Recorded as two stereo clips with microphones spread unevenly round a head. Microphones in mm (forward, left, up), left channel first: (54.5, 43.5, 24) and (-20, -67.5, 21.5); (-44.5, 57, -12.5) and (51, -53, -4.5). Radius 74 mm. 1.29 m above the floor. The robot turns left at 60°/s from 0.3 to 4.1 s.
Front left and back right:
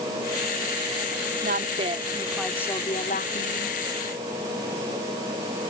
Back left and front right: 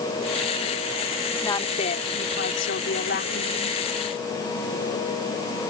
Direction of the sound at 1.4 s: 155° right.